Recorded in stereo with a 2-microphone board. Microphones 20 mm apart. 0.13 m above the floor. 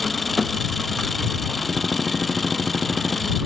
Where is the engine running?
Centre (ahead or behind).